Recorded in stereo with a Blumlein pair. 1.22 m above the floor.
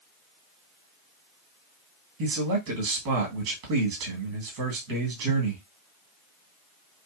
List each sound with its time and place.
2.2 s a man speaking: 45° right, 1.5 m